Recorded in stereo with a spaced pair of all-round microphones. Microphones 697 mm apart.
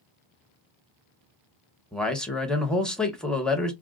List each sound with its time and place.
1.9 s a man speaking: centre (ahead or behind), 0.7 m